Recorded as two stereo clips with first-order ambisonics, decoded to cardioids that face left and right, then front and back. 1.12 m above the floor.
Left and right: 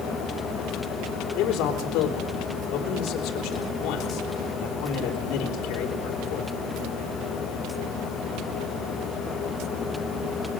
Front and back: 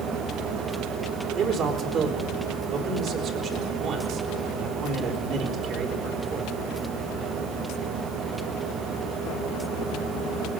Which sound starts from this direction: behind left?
A man speaking, at 1.4 s.